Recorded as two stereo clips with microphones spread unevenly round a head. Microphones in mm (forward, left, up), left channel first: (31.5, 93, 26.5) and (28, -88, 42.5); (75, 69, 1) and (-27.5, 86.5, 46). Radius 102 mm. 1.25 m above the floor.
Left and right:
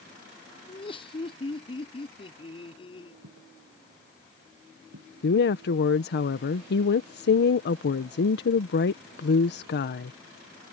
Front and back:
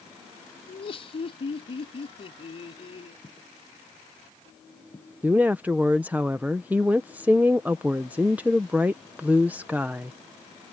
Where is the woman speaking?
85° left.